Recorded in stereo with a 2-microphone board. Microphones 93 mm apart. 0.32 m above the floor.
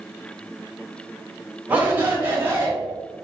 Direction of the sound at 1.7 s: 15° right (ahead or behind).